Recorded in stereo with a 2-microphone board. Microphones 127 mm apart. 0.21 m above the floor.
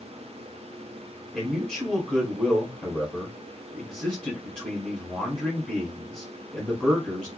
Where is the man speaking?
10° left (ahead or behind), 1.4 m.